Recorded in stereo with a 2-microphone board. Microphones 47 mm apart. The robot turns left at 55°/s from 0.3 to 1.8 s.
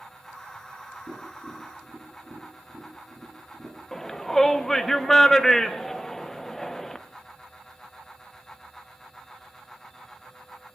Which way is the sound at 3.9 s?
10° left (ahead or behind).